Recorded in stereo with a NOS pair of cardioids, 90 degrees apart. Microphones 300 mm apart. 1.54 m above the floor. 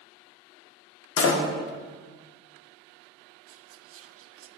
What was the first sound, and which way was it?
A door slam, 45° left.